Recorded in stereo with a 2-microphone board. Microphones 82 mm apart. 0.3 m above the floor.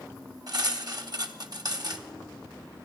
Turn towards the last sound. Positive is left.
turn(degrees=-55)  # may be behind; listen again after turning